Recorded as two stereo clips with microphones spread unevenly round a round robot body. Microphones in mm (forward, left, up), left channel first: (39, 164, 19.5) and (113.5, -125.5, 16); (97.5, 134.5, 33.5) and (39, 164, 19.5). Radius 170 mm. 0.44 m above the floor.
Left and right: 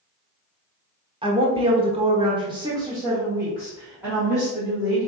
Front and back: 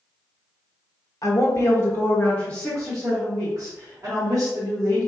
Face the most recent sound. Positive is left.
turn(degrees=-165)